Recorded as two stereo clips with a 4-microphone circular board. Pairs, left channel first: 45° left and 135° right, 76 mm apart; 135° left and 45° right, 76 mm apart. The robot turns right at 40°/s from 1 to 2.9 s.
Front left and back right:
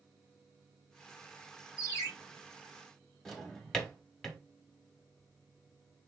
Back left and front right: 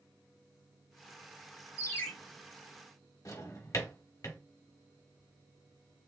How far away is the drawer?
About 0.9 m.